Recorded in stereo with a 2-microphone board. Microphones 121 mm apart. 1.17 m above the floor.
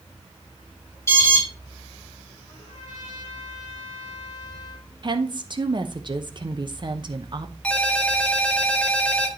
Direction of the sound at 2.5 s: 40° left (ahead or behind).